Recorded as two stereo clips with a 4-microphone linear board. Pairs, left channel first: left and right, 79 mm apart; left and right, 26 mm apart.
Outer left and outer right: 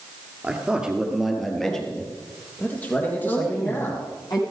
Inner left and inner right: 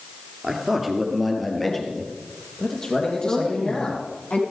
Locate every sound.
0.4 s a man speaking: 15° right (ahead or behind), 2.5 m; by 4.1 s 30° left (ahead or behind), 4.5 m
3.2 s a woman speaking: 55° left (ahead or behind), 5.5 m